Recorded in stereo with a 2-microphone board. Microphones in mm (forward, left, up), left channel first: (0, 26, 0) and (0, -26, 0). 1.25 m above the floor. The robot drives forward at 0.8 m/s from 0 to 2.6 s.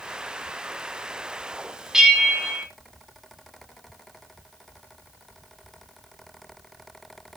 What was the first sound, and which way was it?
A bell, 10° right (ahead or behind).